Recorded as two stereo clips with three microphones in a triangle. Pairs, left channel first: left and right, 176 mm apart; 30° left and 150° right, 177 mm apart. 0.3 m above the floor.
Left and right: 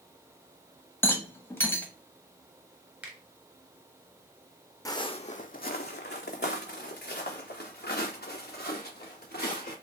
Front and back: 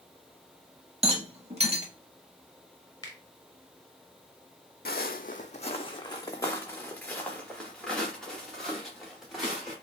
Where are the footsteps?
25° left, 0.6 m; by 9.7 s 125° left, 3 m.